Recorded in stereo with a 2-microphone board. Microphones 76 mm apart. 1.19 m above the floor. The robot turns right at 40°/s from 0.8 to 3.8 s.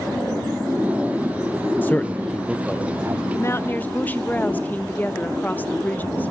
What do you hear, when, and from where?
1.8 s a man speaking: 25° left (ahead or behind), 0.7 m; by 3.2 s 30° right (ahead or behind), 0.7 m
3.3 s a woman speaking: 40° left (ahead or behind), 1.0 m; by 6.3 s 20° left (ahead or behind), 1.0 m